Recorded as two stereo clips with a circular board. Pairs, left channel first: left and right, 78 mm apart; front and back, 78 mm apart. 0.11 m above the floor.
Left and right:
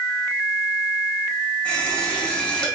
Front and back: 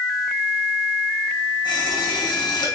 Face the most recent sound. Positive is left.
turn(degrees=10)